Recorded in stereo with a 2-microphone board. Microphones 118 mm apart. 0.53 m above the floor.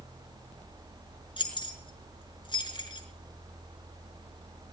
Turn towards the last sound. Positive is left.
turn(degrees=45)  # may be behind; listen again after turning